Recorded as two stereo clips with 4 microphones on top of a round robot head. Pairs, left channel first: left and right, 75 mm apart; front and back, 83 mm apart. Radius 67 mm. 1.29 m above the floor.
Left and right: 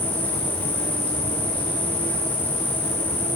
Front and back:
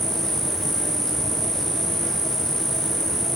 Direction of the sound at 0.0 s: 85° left.